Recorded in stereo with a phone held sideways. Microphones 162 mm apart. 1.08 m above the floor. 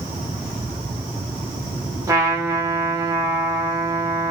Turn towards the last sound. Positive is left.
turn(degrees=-15)  # may be behind; listen again after turning